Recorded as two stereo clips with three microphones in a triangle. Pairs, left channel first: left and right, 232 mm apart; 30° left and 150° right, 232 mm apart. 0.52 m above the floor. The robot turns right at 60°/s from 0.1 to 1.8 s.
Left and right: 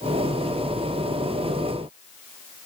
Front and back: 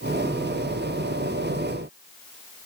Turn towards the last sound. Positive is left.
No sound to turn to.